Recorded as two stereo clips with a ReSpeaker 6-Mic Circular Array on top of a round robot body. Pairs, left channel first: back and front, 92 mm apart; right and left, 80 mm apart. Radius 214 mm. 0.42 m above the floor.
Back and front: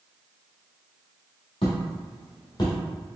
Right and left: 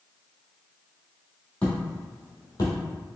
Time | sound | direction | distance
1.6 | footsteps | 165° right | 1.3 m